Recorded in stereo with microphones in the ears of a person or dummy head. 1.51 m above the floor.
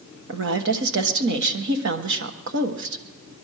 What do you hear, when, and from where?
0.3 s a woman speaking: 65° right (ahead or behind), 1.2 m